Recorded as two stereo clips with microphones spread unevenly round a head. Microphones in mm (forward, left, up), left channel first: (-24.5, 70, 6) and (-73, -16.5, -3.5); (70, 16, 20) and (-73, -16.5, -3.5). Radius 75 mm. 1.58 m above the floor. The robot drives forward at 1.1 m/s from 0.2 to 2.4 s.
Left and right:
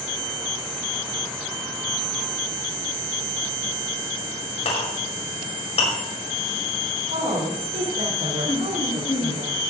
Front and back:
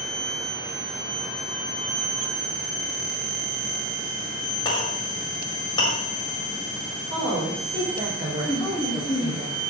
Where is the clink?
75° left, 5.5 m.